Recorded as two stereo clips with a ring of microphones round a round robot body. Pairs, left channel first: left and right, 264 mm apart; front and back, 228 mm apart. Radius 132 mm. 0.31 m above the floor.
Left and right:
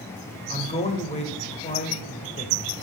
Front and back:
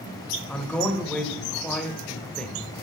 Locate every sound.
0.5 s a man speaking: 80° left, 1.4 m